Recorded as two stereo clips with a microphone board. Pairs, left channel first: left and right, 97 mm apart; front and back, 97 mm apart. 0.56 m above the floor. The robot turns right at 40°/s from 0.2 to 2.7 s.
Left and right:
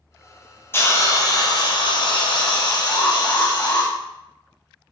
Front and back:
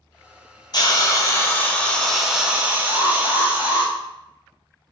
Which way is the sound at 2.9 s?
150° left.